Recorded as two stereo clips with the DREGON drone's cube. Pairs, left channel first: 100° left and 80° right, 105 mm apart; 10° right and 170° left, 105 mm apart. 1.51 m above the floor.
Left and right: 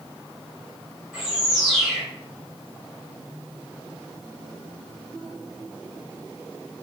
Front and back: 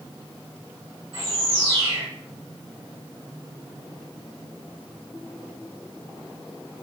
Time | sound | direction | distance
1.1 | a bird | 165° right | 1.8 m